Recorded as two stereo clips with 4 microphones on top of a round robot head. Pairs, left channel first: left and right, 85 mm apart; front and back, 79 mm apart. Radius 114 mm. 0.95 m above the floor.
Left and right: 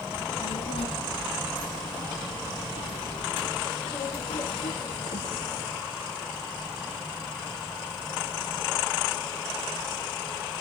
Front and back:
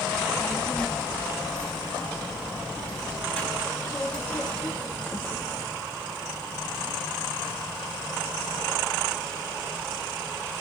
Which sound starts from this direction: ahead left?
A child speaking, at 0.1 s.